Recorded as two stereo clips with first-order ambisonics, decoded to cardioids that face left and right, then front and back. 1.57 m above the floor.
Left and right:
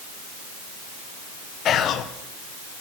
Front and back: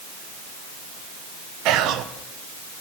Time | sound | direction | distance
1.6 | whispering | 145° left | 0.7 m